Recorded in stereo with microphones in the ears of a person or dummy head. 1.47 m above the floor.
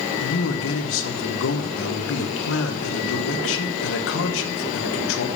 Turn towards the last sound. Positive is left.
turn(degrees=75)  # may be behind; listen again after turning